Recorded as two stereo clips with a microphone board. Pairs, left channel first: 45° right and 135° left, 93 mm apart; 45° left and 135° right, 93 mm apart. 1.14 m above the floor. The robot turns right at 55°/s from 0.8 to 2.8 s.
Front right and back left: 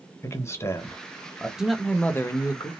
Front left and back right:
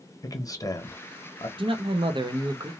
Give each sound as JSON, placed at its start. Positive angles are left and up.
{"t": 0.2, "sound": "a man speaking", "azimuth_deg": 5, "distance_m": 0.9}
{"t": 1.6, "sound": "a man speaking", "azimuth_deg": -145, "distance_m": 0.7}